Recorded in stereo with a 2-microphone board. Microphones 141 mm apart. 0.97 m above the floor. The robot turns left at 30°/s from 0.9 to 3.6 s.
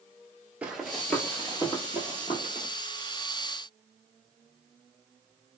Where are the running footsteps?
10° right (ahead or behind), 1.0 m; by 2.7 s 55° left (ahead or behind), 1.6 m.